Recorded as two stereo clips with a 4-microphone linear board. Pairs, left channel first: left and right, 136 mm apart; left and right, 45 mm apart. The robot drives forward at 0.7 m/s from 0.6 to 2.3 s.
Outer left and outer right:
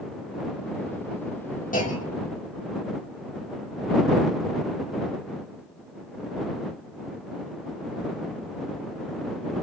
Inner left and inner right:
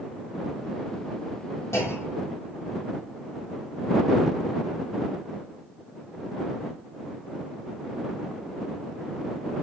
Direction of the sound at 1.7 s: 85° left.